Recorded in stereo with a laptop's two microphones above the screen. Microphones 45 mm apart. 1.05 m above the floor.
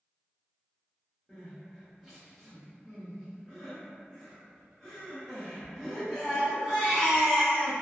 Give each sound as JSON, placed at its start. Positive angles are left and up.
{"t": 1.3, "sound": "crying", "side_deg": -5, "distance_m": 0.8}